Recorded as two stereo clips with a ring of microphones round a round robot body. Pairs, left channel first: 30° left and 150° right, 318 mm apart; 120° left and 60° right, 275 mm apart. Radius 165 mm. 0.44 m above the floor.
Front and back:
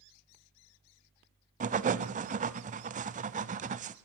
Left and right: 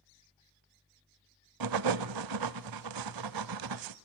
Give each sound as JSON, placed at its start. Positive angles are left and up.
{"t": 1.6, "sound": "writing", "azimuth_deg": -80, "distance_m": 0.6}